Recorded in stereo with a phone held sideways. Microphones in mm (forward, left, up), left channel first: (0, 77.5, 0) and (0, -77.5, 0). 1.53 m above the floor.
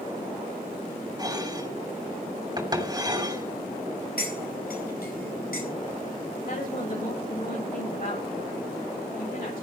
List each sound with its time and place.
1.2 s dishes clattering: 25° right (ahead or behind), 2.5 m
4.2 s cutlery clinking: 80° left, 5 m
6.5 s a woman speaking: 65° left (ahead or behind), 8.5 m